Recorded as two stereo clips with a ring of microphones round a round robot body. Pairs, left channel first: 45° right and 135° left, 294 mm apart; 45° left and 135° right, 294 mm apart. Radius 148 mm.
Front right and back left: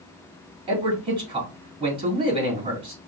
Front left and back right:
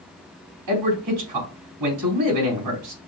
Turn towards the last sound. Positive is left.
turn(degrees=-150)